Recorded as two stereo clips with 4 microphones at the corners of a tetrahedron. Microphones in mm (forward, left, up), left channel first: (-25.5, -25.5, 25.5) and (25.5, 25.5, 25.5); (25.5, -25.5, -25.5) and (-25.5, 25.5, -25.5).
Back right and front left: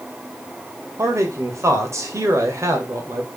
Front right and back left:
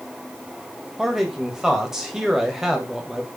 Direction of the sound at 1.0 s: 55° left.